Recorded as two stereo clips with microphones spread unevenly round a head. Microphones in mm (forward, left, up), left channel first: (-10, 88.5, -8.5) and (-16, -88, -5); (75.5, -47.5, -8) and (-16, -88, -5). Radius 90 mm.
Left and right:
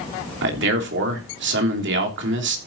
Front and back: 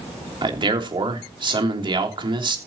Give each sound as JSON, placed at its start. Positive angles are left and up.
{"t": 0.4, "sound": "a man speaking", "azimuth_deg": -115, "distance_m": 3.0}